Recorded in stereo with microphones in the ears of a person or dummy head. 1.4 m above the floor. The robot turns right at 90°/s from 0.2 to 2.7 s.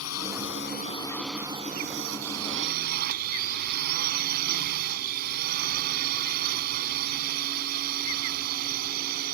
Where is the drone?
90° left; by 9.4 s 45° right.